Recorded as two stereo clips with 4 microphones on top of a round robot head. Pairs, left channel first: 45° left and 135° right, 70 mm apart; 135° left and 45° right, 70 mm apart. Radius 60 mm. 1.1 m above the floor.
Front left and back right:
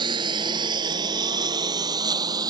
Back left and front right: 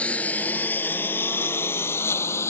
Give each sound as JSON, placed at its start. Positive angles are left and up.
{"t": 0.0, "sound": "a lawn mower", "azimuth_deg": -150}